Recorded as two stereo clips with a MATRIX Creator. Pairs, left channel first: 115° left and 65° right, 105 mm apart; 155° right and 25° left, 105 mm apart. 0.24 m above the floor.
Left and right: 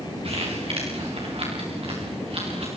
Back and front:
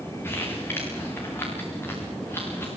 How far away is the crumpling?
About 7 m.